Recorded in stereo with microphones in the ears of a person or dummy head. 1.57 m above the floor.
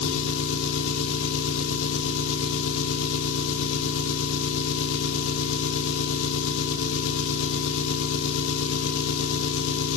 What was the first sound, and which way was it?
An engine running, 85° left.